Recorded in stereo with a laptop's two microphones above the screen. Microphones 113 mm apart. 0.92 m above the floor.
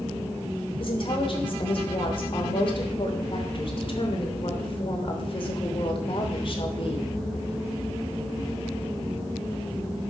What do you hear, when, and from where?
0.8 s a woman speaking: 50° left (ahead or behind), 3 m